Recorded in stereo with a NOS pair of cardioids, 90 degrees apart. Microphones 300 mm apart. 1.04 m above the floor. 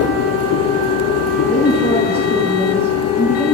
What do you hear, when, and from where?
0.0 s a machine running: 60° left, 0.7 m
1.5 s a woman speaking: 10° left, 5.5 m